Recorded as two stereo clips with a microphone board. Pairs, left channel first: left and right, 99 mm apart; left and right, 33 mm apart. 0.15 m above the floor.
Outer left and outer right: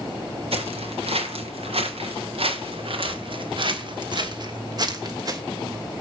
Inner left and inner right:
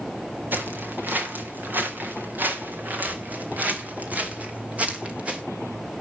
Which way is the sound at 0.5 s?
85° right.